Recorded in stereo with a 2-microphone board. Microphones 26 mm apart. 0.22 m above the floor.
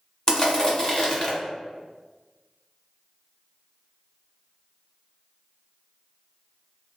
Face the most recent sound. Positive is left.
turn(degrees=25)  # may be behind; listen again after turning